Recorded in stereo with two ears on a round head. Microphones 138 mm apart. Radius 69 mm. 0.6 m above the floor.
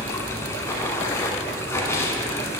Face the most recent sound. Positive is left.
turn(degrees=20)  # may be behind; listen again after turning